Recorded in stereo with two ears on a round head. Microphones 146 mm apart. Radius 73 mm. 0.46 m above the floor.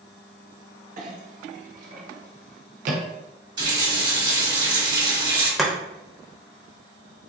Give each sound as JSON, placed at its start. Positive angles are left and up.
{"t": 1.0, "sound": "a clink", "side_deg": -50, "distance_m": 0.7}
{"t": 3.6, "sound": "a running tap", "side_deg": -25, "distance_m": 1.1}
{"t": 5.6, "sound": "chopping", "side_deg": 0, "distance_m": 0.6}